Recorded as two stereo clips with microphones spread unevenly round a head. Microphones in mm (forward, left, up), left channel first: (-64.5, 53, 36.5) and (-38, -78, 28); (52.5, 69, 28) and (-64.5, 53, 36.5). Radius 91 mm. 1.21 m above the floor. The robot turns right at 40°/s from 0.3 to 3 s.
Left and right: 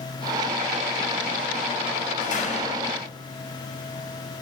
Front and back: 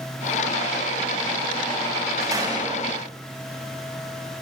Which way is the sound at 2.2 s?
120° left.